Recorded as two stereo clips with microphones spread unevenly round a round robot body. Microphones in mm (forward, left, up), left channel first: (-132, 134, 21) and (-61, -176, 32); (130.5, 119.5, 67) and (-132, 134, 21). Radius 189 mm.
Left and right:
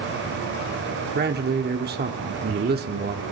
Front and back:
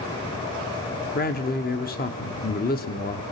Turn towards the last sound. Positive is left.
turn(degrees=-45)